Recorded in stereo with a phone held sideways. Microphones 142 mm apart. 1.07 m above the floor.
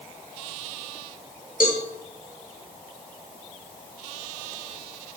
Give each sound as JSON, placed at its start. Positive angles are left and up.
{"t": 1.6, "sound": "a cowbell", "side_deg": 75, "distance_m": 1.8}